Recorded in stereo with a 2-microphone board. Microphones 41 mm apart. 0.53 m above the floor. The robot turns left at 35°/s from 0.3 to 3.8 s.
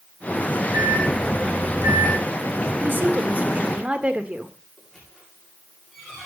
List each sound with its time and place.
0.7 s a microwave: 65° right, 3 m; by 2.2 s 115° right, 3 m
2.8 s a woman speaking: 105° right, 1.6 m; by 4.5 s 140° right, 1.6 m
4.8 s a squeak: 5° left (ahead or behind), 7.5 m